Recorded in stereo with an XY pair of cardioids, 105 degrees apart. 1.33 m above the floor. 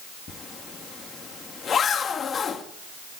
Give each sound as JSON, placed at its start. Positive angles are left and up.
{"t": 0.3, "sound": "a zipper", "azimuth_deg": 45, "distance_m": 2.0}